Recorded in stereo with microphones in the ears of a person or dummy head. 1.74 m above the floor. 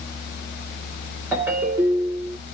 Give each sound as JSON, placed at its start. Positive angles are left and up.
{"t": 1.3, "sound": "a ringtone", "side_deg": -15, "distance_m": 1.9}